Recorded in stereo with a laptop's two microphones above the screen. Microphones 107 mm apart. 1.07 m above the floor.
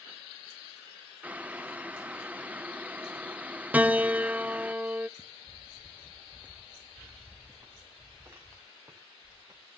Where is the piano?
15° right (ahead or behind), 0.6 m.